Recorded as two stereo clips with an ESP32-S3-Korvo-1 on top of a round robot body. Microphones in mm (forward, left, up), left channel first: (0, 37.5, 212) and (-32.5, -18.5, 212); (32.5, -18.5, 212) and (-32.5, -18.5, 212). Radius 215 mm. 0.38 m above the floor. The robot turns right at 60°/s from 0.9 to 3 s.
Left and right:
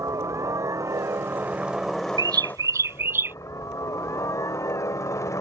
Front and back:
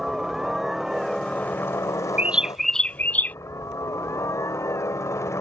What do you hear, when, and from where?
0.0 s a helicopter: 95° right; by 5.4 s 30° left
2.2 s a bird: 115° right; by 3.4 s 65° right